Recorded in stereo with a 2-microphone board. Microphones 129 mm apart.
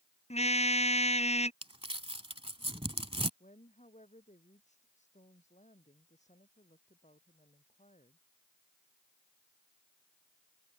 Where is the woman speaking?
65° left (ahead or behind).